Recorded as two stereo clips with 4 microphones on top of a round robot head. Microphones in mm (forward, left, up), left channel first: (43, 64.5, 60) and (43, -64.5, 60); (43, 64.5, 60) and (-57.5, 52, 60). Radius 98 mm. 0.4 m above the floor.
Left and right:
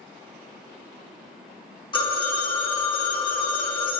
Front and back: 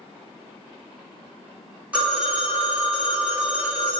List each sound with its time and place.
1.9 s a phone ringing: 115° left, 1.1 m